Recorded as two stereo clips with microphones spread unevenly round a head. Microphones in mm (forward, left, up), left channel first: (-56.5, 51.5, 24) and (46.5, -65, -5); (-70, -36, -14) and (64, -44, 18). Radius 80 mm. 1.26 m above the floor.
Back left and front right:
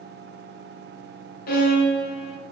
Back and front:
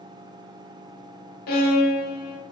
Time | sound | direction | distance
1.5 | a violin | 165° left | 0.7 m